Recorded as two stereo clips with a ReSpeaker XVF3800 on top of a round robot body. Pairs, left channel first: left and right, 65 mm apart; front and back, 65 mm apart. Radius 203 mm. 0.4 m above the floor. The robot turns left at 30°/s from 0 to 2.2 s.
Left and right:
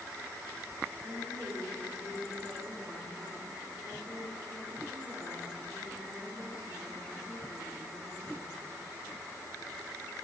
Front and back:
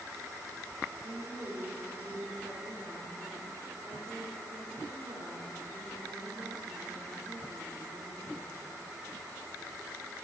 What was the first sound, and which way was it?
A woman speaking, 125° right.